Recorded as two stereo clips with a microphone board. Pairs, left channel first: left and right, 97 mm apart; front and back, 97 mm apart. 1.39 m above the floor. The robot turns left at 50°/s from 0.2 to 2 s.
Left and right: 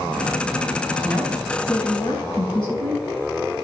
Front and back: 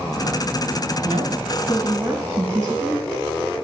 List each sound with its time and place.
1.0 s a woman speaking: 170° left, 2 m; by 3.0 s 120° left, 2 m